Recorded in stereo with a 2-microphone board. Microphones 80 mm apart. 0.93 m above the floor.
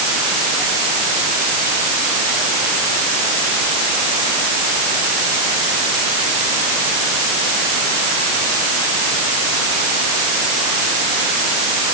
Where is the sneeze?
No sneeze in this recording.